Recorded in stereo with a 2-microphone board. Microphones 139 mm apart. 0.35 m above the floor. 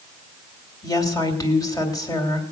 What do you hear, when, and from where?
0.8 s a woman speaking: 25° left (ahead or behind), 2.0 m